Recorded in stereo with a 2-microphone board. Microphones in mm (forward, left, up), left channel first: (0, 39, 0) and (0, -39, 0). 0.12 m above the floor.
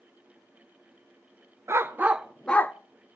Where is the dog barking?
35° right (ahead or behind), 0.8 m; by 2.8 s 30° left (ahead or behind), 0.6 m.